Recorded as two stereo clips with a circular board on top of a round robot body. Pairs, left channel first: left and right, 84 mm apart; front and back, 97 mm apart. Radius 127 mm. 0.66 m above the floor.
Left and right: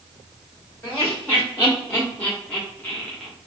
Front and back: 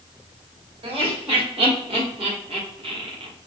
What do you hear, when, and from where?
0.8 s laughter: 150° left, 2 m; by 3.3 s 170° left, 0.9 m